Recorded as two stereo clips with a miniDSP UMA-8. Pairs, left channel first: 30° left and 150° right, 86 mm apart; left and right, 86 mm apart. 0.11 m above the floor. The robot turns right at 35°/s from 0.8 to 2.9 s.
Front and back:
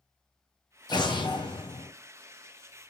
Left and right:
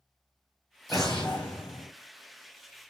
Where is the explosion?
Straight ahead, 0.9 m; by 1.9 s 35° left, 0.9 m.